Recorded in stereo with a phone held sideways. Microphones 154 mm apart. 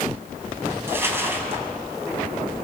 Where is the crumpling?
15° right (ahead or behind), 3.5 m.